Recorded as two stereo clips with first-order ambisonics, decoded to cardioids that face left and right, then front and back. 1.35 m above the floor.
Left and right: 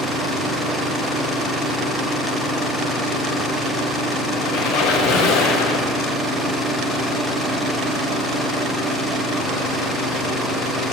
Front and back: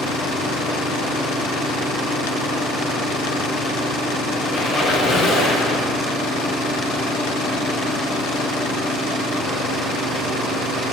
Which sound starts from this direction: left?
A squeak, at 4.5 s.